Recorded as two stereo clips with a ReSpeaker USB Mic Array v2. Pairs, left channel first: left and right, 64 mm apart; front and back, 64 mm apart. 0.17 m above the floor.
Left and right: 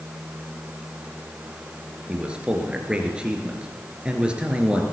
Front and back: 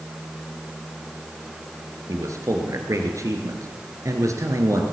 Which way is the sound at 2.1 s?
165° right.